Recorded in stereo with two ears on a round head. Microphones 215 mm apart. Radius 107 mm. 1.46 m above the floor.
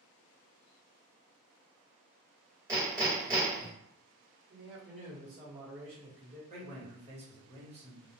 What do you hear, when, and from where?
2.7 s hammering: 15° right (ahead or behind), 1.4 m
4.5 s a man speaking: 40° right (ahead or behind), 1.2 m
6.5 s a man speaking: 30° right (ahead or behind), 1.3 m